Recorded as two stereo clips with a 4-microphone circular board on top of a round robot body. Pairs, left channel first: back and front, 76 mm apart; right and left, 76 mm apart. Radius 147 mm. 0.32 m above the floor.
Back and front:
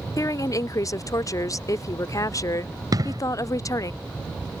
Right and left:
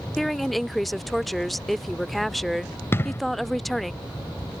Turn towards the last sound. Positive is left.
turn(degrees=-35)